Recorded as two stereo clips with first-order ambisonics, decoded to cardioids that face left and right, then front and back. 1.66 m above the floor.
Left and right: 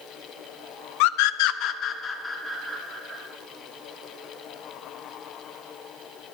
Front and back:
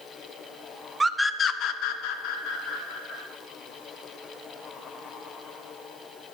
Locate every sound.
1.0 s a scream: 100° left, 0.6 m; by 3.2 s straight ahead, 1.5 m